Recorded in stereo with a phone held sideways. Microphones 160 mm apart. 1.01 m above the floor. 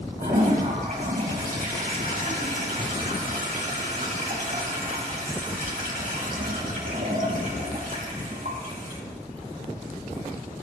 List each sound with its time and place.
0.2 s a toilet flushing: 60° right (ahead or behind), 3.5 m